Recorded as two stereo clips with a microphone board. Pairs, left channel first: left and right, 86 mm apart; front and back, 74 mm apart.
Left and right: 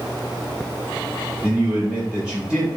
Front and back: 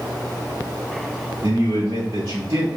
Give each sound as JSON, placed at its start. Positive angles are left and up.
{"t": 1.4, "sound": "a man speaking", "azimuth_deg": -170, "distance_m": 1.1}